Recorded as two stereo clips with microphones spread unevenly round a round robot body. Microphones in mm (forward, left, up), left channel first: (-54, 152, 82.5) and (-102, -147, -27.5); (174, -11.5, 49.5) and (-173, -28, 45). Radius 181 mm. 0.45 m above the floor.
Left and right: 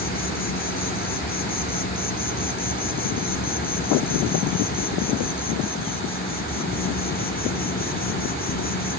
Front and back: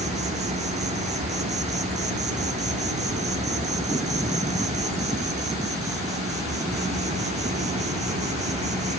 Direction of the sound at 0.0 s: 150° left.